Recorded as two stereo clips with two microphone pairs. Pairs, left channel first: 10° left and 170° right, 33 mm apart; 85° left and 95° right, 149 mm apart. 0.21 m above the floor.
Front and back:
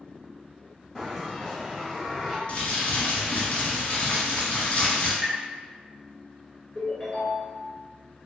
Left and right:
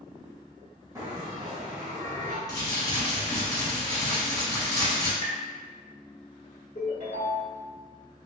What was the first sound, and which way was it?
A bell, 95° right.